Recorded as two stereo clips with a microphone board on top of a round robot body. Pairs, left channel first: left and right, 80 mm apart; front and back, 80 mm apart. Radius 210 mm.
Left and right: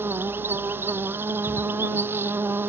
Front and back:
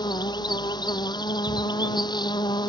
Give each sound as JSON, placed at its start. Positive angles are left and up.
{"t": 0.0, "sound": "an insect", "azimuth_deg": -25}